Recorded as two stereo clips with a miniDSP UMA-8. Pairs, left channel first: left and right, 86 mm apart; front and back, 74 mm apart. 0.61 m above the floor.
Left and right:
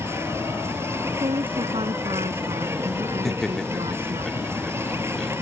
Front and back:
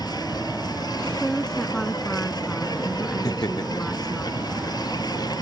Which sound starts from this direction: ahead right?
An insect, at 0.0 s.